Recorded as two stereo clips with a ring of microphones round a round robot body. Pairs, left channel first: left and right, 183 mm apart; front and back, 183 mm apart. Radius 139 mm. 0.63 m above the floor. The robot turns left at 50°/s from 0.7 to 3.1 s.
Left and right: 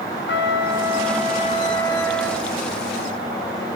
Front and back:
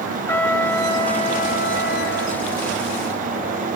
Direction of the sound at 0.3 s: 80° left.